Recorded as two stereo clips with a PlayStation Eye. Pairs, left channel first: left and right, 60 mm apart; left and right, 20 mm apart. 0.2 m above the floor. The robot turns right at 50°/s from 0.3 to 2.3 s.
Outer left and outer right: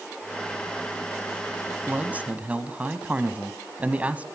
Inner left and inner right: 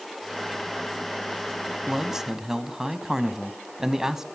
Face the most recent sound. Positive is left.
turn(degrees=-25)  # may be behind; listen again after turning